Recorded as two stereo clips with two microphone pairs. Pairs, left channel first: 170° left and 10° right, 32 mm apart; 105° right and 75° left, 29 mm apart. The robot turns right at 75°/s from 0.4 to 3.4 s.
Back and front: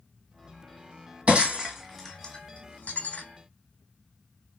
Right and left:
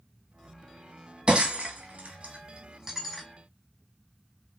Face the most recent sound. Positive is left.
turn(degrees=-175)